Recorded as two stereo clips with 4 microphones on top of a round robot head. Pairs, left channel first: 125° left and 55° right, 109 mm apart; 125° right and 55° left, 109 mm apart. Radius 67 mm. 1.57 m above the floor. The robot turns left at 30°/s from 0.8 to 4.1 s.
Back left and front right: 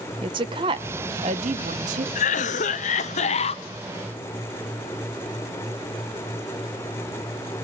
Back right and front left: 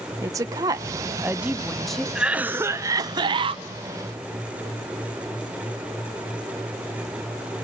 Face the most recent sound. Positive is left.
turn(degrees=75)